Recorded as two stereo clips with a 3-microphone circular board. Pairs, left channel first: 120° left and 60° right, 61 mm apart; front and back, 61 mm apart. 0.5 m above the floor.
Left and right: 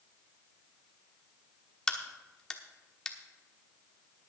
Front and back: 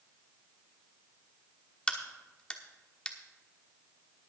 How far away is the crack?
About 1.1 m.